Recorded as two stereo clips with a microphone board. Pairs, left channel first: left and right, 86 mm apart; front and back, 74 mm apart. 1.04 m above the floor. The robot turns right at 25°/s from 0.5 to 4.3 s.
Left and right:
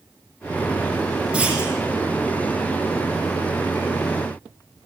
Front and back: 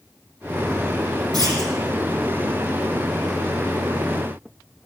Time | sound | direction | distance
1.3 | a clunk | 170° right | 8 m